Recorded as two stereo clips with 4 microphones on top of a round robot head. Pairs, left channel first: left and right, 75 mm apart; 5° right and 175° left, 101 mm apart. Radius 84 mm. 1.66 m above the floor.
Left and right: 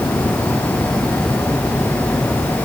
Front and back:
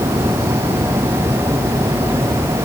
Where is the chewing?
I don't hear chewing.